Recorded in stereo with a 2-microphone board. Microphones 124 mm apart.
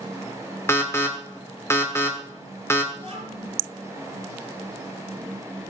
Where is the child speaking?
55° right (ahead or behind), 6 m.